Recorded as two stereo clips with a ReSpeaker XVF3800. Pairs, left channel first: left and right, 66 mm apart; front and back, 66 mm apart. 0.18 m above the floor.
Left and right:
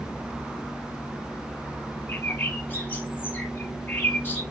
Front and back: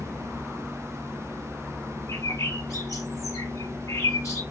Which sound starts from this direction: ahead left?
A bird, at 2.1 s.